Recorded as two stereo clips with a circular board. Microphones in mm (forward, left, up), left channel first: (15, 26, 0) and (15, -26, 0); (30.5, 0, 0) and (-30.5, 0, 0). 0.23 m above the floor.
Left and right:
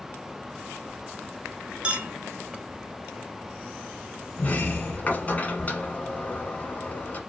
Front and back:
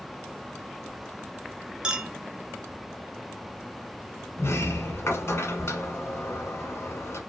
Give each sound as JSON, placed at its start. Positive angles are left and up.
{"t": 1.8, "sound": "a clink", "azimuth_deg": -120, "distance_m": 0.6}
{"t": 4.4, "sound": "a sliding door", "azimuth_deg": 35, "distance_m": 1.1}